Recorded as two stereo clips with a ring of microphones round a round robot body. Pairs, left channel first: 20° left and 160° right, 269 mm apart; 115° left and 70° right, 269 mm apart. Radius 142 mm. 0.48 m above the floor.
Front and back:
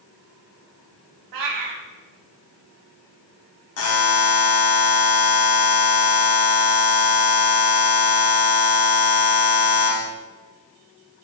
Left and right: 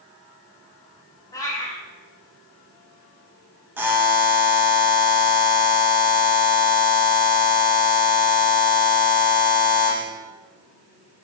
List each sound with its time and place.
1.3 s a cat meowing: 170° right, 0.6 m
3.8 s a buzzer: 15° left, 0.7 m